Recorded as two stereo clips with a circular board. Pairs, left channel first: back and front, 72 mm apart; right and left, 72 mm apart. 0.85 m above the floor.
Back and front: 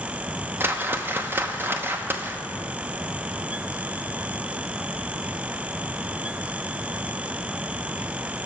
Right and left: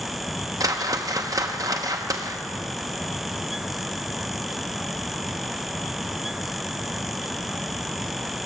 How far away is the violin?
No violin in this recording.